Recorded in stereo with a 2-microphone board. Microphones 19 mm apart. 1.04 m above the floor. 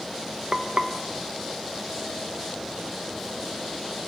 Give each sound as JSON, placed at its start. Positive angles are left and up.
{"t": 0.5, "sound": "frying", "side_deg": -55, "distance_m": 0.8}